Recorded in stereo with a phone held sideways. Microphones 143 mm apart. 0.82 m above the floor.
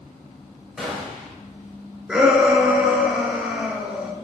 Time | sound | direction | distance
0.8 | a gunshot | centre (ahead or behind) | 3 m
2.1 | a shout | 10° right (ahead or behind) | 3 m